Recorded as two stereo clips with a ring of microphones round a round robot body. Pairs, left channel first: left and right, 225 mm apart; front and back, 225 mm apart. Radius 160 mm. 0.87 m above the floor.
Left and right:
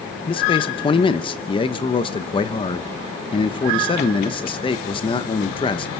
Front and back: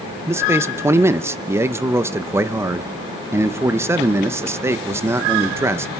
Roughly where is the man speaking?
Behind left.